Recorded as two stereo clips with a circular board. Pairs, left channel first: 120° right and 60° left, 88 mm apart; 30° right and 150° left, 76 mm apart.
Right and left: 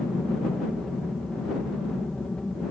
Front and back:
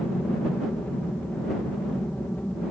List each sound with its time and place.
0.0 s an aircraft: 50° right